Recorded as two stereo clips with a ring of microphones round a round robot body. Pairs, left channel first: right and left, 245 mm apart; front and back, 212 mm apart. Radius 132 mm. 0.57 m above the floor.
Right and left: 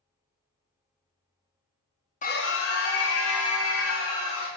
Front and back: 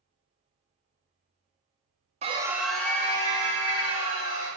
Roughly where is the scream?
Behind right.